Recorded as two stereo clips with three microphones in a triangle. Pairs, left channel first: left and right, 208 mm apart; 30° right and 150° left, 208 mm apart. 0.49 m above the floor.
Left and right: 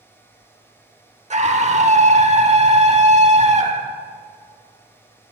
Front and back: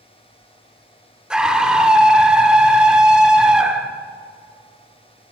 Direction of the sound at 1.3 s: 125° right.